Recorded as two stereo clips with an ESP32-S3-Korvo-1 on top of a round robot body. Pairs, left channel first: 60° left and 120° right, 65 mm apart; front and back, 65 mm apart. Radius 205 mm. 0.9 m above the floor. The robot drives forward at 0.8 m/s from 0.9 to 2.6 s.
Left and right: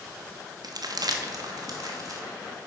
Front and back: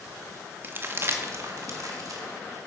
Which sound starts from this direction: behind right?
Crumpling, at 0.6 s.